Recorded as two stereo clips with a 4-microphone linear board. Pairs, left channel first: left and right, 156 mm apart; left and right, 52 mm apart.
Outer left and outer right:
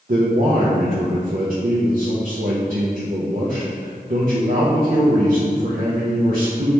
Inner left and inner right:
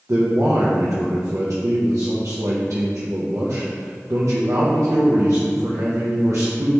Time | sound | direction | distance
0.1 | a man speaking | 65° right (ahead or behind) | 0.5 m